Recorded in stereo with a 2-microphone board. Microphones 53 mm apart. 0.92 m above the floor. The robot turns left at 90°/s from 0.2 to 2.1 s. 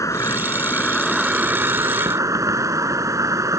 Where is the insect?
85° left; by 3.6 s 85° right.